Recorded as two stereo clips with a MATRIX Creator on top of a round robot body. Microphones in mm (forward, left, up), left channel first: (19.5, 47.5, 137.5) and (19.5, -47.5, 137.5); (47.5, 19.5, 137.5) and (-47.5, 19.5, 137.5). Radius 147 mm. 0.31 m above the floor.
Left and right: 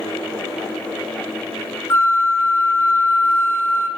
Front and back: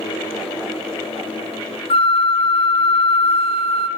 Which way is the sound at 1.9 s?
25° left.